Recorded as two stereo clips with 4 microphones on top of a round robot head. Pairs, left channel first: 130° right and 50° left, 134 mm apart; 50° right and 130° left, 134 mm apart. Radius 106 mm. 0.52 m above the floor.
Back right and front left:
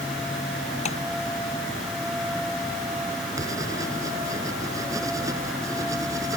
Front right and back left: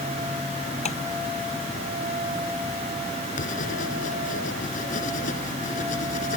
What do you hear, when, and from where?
0.8 s tapping: 90° right
3.4 s writing: 20° right